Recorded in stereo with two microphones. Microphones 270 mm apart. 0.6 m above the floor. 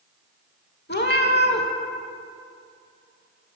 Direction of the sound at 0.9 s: 40° left (ahead or behind).